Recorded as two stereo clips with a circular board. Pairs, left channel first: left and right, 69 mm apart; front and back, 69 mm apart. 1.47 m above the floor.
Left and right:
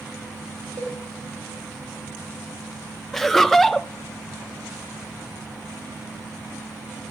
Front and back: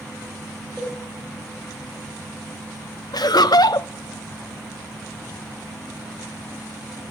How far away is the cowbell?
About 3 m.